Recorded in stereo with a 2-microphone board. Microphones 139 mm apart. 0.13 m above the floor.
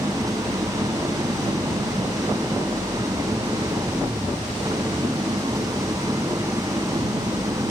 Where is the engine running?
25° right (ahead or behind).